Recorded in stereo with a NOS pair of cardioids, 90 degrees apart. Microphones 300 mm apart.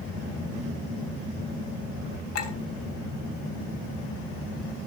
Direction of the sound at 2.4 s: 55° left.